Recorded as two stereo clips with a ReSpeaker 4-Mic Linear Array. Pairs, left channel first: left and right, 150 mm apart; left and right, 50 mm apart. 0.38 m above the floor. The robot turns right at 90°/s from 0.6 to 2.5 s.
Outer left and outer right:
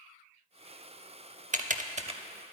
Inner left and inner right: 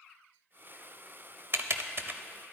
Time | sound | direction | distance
1.5 | typing on a keyboard | 55° right (ahead or behind) | 0.7 m